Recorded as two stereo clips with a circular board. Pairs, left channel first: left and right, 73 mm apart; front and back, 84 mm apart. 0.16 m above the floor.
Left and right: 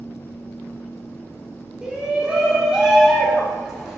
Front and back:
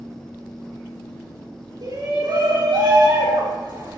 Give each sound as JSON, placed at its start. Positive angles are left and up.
{"t": 1.8, "sound": "a shout", "azimuth_deg": -165, "distance_m": 7.0}